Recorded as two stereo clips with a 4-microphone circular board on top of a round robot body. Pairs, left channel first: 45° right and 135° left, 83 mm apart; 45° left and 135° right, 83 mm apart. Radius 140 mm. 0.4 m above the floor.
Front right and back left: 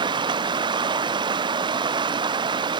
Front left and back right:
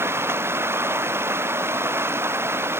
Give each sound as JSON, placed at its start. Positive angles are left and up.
{"t": 0.0, "sound": "running water", "azimuth_deg": 165}